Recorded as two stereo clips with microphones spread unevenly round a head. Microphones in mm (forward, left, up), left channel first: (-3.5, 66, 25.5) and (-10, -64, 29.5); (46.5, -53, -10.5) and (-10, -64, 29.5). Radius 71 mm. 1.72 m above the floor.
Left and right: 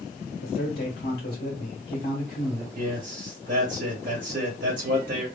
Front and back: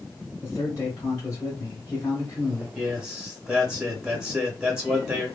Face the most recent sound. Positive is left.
turn(degrees=-110)